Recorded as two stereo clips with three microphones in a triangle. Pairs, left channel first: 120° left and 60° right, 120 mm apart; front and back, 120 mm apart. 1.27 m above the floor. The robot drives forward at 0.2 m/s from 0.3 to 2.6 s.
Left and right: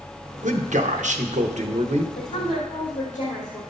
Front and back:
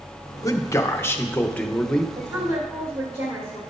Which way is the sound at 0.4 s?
65° right.